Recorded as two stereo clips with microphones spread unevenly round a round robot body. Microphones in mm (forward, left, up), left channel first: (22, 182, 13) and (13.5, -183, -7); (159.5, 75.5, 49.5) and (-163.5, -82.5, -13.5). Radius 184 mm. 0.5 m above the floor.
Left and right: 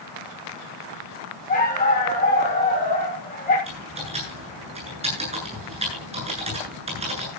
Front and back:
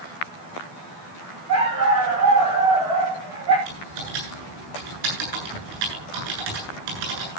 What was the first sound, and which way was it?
A dog barking, 160° left.